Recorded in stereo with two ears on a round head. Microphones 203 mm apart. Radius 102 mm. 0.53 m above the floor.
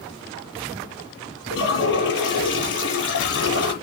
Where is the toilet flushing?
55° left (ahead or behind), 6.5 m.